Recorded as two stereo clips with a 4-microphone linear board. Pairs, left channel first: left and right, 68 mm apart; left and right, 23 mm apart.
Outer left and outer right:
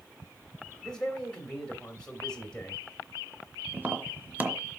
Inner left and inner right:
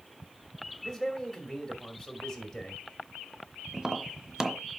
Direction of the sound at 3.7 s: 30° right (ahead or behind).